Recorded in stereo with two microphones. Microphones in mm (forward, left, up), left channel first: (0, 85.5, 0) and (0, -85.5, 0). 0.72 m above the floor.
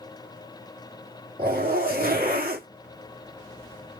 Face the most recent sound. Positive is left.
turn(degrees=-55)  # may be behind; listen again after turning